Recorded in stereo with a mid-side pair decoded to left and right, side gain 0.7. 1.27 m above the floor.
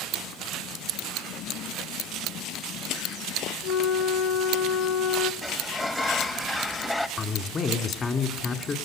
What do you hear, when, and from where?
3.6 s a flute: 40° left, 1.2 m
5.4 s a sliding door: 10° left, 1.6 m
7.2 s a man speaking: 30° left, 3 m